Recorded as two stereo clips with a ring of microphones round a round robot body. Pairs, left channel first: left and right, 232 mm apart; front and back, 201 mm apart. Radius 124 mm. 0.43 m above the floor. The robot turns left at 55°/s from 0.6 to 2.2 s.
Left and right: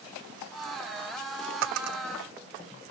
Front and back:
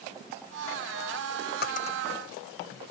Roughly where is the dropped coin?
Ahead right.